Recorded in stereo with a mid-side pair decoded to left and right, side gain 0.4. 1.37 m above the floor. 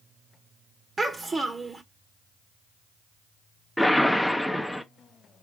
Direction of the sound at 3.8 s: 5° left.